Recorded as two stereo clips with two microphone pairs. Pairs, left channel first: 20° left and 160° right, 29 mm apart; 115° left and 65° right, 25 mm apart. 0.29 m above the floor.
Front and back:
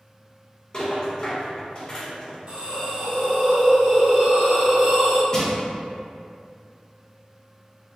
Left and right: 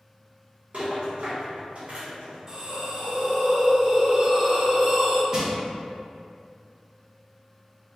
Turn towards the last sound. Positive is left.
turn(degrees=-30)